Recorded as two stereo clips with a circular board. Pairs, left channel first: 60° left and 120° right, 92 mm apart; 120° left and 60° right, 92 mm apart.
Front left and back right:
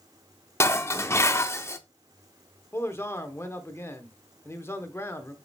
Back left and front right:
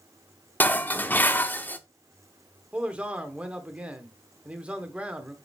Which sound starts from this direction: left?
Dishes clattering, at 0.6 s.